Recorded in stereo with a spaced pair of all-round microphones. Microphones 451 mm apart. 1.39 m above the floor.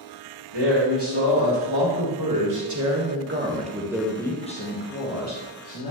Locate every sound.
0.5 s a man speaking: 65° right (ahead or behind), 2.5 m; by 5.9 s 45° left (ahead or behind), 1.6 m